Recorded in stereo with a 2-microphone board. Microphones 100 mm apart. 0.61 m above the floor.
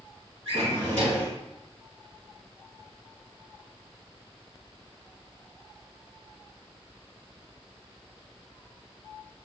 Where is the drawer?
70° right (ahead or behind), 1.6 m.